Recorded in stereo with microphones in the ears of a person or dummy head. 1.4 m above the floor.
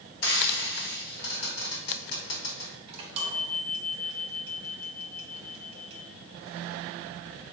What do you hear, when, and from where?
0.2 s frying: 55° left (ahead or behind), 1.1 m
2.9 s a chime: 35° right (ahead or behind), 0.9 m